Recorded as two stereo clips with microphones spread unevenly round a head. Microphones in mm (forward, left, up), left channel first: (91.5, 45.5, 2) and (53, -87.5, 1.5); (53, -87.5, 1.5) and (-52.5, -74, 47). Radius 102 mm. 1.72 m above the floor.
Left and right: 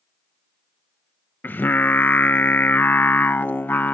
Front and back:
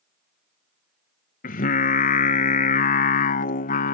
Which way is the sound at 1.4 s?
Straight ahead.